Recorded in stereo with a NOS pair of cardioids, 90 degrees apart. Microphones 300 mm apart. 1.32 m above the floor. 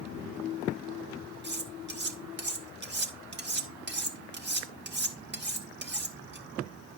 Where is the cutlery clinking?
35° right, 2 m.